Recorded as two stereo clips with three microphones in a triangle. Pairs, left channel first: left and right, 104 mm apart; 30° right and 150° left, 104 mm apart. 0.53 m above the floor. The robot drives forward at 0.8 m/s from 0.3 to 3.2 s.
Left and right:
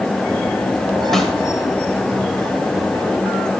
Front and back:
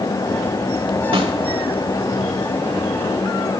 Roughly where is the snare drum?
Behind.